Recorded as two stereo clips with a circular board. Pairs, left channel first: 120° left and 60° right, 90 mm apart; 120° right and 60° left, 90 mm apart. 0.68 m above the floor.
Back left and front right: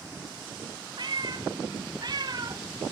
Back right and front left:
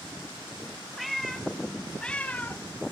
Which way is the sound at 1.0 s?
30° right.